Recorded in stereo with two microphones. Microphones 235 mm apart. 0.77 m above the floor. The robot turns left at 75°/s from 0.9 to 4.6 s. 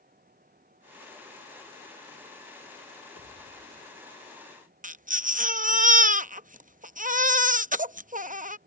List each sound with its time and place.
3.1 s a pop: 85° left; by 4.0 s 15° left
4.8 s a baby crying: 35° right (ahead or behind)